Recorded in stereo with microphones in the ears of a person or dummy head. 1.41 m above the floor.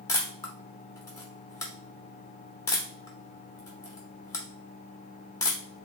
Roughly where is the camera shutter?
Centre.